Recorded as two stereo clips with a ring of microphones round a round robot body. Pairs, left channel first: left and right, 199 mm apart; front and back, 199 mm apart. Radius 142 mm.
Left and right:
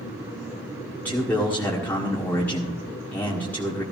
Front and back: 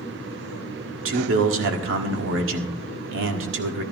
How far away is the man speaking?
About 1.6 m.